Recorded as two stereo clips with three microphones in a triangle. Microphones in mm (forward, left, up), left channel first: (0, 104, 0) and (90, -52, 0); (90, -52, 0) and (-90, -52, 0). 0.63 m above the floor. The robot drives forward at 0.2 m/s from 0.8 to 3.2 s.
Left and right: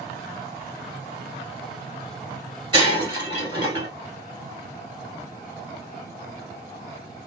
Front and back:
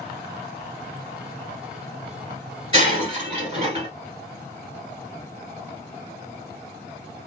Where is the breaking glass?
125° right, 1.6 m.